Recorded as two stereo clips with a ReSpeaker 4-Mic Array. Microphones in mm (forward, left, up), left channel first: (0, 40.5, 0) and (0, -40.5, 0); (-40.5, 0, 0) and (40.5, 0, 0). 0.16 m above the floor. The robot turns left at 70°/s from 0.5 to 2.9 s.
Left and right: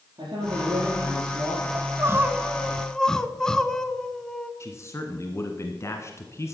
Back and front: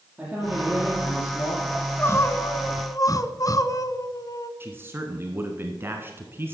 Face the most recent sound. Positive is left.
turn(degrees=50)